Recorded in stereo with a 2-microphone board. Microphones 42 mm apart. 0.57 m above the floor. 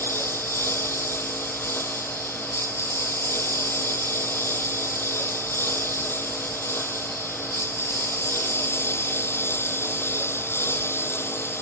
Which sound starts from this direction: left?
A lawn mower, at 0.0 s.